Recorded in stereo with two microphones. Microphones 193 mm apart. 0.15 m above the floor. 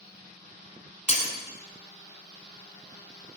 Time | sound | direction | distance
1.1 | breaking glass | 35° left (ahead or behind) | 1.2 m